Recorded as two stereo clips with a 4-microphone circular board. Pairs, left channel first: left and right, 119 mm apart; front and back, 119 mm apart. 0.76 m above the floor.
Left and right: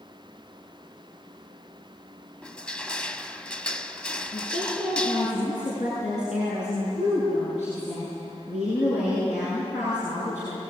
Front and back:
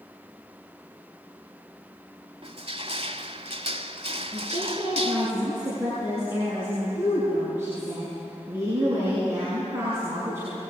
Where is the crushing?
170° left, 0.9 m.